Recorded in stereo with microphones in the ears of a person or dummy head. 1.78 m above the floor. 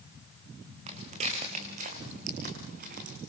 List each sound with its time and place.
0.9 s footsteps: 35° right (ahead or behind), 6.5 m; by 3.2 s 50° right (ahead or behind), 6 m